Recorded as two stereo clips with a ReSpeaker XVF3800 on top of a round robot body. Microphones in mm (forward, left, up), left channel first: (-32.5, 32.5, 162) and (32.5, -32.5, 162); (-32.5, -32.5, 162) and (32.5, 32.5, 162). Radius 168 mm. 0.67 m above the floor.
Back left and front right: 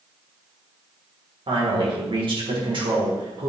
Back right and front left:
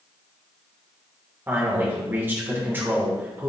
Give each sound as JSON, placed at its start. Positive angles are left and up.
{"t": 1.5, "sound": "a man speaking", "azimuth_deg": -20, "distance_m": 3.0}